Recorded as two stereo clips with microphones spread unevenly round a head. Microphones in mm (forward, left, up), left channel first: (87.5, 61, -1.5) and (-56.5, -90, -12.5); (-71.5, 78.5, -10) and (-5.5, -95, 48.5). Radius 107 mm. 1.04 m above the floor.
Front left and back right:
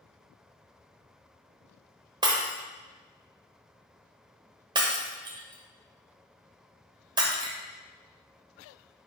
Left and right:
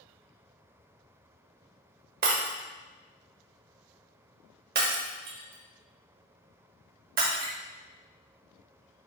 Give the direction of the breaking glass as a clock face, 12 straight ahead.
2 o'clock.